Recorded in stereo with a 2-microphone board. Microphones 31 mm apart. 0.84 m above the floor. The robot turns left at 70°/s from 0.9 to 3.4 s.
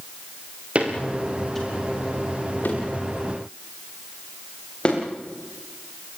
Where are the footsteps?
40° right (ahead or behind), 7 m; by 5.0 s 35° left (ahead or behind), 10.5 m.